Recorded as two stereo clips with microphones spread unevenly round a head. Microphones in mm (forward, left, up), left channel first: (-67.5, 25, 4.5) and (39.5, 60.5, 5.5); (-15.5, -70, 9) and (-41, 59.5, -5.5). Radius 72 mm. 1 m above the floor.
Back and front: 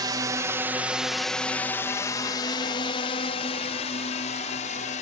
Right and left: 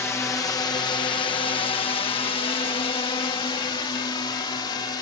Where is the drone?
5° right; by 5.0 s 135° right.